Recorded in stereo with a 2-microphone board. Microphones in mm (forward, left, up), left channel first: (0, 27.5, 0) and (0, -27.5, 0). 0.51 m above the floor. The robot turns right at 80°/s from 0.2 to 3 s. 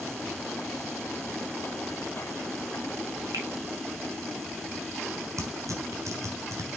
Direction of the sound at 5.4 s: 75° right (ahead or behind).